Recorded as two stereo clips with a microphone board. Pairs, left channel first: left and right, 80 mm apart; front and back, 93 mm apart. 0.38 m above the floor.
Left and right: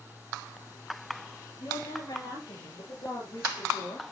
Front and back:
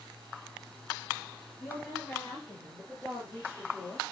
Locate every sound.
1.6 s a woman speaking: 80° left, 7.5 m